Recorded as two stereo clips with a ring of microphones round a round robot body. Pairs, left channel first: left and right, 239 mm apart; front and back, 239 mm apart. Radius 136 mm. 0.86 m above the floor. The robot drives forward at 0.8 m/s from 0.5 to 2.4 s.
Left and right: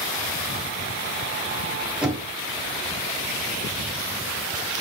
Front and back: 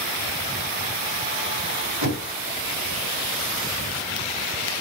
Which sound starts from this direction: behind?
Knocking, at 2.0 s.